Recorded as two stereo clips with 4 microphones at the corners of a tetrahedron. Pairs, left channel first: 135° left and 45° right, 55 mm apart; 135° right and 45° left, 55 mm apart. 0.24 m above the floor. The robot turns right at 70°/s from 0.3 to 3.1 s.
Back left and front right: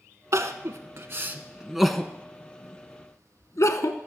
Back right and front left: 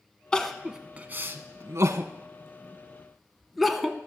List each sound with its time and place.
0.3 s crying: 60° right, 0.7 m; by 4.0 s 135° left, 0.7 m